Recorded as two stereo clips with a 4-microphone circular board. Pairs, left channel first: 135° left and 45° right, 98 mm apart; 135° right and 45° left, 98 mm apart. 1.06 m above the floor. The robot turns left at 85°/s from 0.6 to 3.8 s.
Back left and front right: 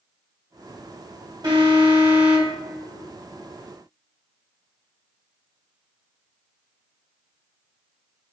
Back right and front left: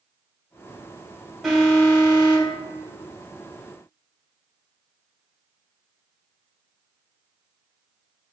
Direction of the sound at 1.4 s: 40° right.